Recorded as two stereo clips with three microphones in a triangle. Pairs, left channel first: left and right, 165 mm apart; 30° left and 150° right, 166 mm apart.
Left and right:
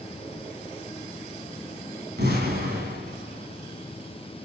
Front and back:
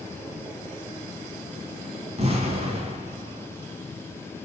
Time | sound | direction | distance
2.2 | an explosion | 100° right | 3 m